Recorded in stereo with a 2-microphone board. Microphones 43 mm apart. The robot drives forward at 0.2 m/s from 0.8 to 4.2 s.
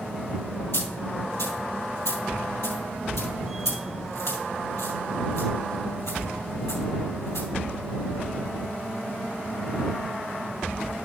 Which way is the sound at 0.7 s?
70° left (ahead or behind).